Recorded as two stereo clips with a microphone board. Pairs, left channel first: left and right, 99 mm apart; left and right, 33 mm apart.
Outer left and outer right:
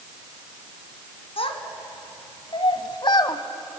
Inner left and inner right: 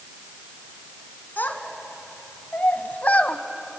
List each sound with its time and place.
1.4 s a child speaking: 75° left (ahead or behind), 2.5 m; by 3.4 s 45° left (ahead or behind), 1.4 m